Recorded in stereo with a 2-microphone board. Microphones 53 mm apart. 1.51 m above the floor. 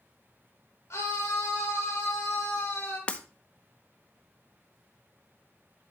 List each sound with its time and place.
0.9 s a scream: 65° left (ahead or behind), 2 m; by 3.0 s 40° left (ahead or behind), 4 m
3.1 s breaking glass: 25° left (ahead or behind), 0.9 m